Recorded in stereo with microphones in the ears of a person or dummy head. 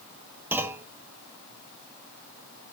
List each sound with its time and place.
0.5 s a clunk: 10° right (ahead or behind), 1.1 m